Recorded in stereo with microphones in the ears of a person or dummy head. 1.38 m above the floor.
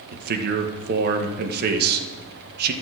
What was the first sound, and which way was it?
A man speaking, 55° right (ahead or behind).